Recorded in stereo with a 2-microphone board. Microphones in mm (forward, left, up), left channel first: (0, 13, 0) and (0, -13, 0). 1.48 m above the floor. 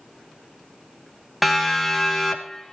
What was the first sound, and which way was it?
A siren, centre (ahead or behind).